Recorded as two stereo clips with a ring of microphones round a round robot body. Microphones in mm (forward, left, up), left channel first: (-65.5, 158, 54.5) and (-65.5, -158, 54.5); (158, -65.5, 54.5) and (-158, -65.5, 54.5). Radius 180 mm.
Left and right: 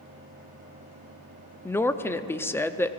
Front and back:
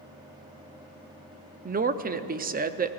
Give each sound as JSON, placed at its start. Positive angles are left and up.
{"t": 1.6, "sound": "a woman speaking", "azimuth_deg": 165, "distance_m": 0.7}